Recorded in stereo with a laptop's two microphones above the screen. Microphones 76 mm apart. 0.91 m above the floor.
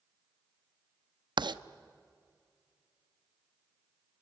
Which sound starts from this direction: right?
Writing, at 1.4 s.